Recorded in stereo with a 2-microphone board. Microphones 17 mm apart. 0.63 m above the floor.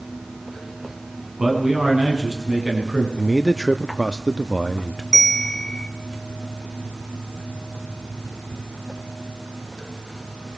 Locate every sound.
1.4 s a man speaking: 45° right (ahead or behind), 6.5 m
3.2 s a man speaking: 10° right (ahead or behind), 0.8 m
5.1 s a bell: 30° left (ahead or behind), 1.2 m